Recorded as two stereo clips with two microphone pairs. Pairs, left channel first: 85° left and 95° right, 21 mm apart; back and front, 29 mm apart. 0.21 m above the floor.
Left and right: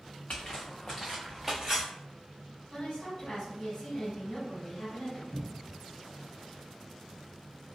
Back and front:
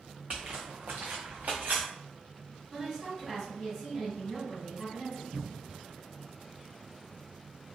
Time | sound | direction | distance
0.3 | footsteps | 55° left | 0.9 m
2.7 | a woman speaking | 105° left | 1.4 m
5.3 | a cupboard door | 60° right | 0.7 m